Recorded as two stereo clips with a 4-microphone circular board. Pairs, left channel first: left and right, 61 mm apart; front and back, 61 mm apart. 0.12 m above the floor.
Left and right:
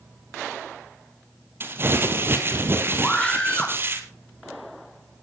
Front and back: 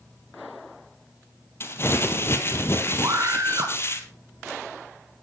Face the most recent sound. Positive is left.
turn(degrees=165)